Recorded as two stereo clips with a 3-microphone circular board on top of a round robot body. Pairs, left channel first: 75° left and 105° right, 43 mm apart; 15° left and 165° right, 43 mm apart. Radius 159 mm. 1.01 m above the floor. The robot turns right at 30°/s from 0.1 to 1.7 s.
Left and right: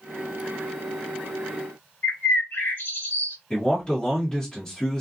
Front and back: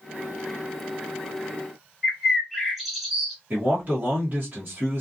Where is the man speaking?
145° left, 1.1 m.